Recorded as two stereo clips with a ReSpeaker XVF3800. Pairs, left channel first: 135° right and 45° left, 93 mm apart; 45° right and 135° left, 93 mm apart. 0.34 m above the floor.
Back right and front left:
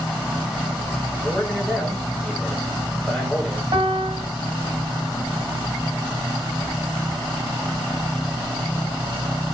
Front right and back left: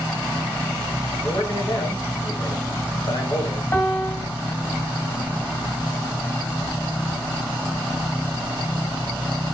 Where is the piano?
15° left, 0.9 m.